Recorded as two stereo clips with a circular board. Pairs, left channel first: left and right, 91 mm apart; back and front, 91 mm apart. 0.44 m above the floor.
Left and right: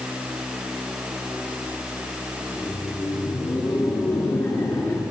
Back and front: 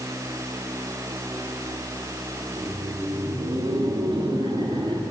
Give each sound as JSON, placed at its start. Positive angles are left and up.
{"t": 2.5, "sound": "laughter", "azimuth_deg": 35, "distance_m": 6.5}